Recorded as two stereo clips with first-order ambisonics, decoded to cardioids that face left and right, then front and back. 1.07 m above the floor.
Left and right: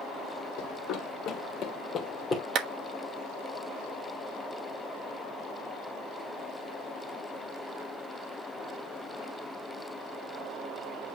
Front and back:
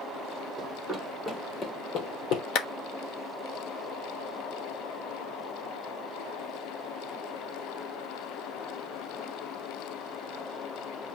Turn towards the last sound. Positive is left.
turn(degrees=-35)